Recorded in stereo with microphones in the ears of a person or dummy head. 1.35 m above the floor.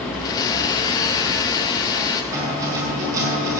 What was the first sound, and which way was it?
A blender, 20° left (ahead or behind).